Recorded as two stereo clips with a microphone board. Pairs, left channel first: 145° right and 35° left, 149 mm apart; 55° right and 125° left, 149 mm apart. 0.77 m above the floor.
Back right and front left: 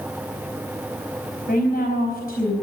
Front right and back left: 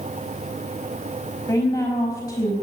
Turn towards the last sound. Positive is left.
turn(degrees=-130)